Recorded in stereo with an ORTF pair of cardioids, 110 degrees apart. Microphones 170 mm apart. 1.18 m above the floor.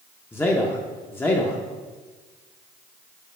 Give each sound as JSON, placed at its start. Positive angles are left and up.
{"t": 0.3, "sound": "a man speaking", "azimuth_deg": 10, "distance_m": 0.7}